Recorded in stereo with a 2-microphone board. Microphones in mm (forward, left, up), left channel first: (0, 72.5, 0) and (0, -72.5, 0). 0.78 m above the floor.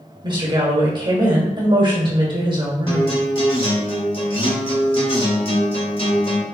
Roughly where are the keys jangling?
I don't hear keys jangling.